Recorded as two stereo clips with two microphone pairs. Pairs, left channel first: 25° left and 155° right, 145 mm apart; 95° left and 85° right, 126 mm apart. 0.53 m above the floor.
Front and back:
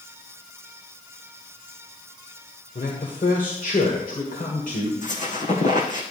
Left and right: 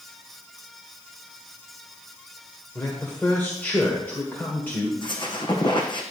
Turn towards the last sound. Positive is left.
turn(degrees=45)